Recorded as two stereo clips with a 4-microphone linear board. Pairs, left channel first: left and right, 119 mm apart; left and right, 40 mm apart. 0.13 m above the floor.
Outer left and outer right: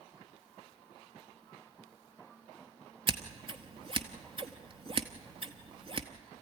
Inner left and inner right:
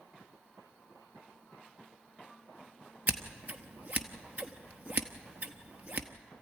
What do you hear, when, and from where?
3.1 s scissors: 45° right (ahead or behind), 1.1 m